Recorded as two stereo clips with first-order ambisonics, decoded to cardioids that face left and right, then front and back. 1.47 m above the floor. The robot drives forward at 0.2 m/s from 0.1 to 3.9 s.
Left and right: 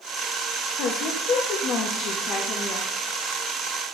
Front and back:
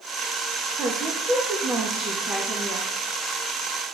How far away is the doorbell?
I don't hear a doorbell.